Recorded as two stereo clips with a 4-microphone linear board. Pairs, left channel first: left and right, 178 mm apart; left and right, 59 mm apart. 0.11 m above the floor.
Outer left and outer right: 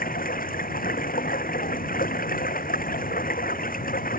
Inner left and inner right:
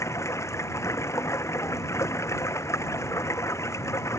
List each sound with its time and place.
0.0 s running water: 55° left (ahead or behind)